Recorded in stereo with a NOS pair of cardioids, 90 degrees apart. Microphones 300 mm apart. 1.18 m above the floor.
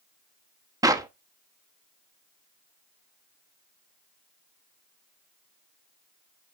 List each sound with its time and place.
0.8 s a clap: 10° right, 1.1 m